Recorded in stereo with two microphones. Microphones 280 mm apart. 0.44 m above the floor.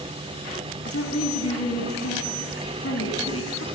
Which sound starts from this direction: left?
A woman speaking, at 0.8 s.